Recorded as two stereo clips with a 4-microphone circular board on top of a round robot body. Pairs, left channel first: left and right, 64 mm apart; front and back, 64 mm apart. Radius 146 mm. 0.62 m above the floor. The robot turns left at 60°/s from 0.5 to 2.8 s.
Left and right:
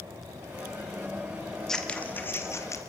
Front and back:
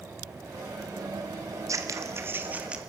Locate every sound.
1.7 s scissors: 170° left, 1.7 m; by 2.8 s 105° left, 1.7 m